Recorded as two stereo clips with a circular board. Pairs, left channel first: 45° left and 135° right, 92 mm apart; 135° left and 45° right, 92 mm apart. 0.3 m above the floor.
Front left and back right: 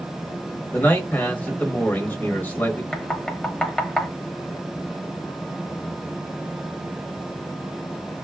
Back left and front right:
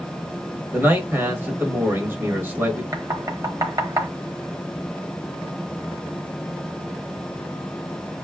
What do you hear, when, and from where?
0.7 s a man speaking: 5° right, 1.1 m
2.9 s knocking: 30° right, 0.9 m